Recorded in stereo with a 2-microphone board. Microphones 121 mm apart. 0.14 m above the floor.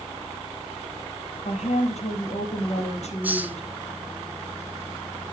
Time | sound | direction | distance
1.4 | a woman speaking | 70° left (ahead or behind) | 4.5 m
3.2 | a hiss | 15° right (ahead or behind) | 1.1 m